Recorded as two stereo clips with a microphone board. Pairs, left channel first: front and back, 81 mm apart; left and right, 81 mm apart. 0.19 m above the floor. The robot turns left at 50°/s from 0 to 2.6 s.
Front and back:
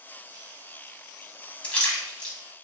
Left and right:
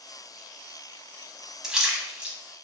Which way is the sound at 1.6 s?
25° right.